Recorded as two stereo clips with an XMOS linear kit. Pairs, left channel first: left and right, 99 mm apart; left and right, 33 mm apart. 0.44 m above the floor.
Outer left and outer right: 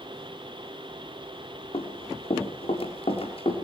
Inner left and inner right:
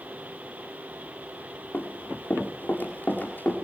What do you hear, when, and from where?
1.7 s running footsteps: 75° left (ahead or behind), 6.5 m; by 3.5 s 70° left (ahead or behind), 8 m